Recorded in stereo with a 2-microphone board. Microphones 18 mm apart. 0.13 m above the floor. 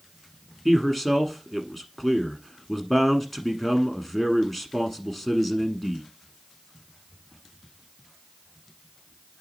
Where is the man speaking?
10° left (ahead or behind), 1.1 m.